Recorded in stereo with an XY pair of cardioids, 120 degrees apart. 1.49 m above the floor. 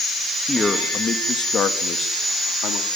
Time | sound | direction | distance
0.5 | a man speaking | 15° left | 3 m